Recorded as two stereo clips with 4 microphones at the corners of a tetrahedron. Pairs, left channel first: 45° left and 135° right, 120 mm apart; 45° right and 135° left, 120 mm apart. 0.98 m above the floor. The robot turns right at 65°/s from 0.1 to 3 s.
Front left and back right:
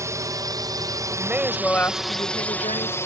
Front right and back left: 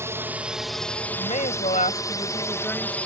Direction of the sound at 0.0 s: 175° right.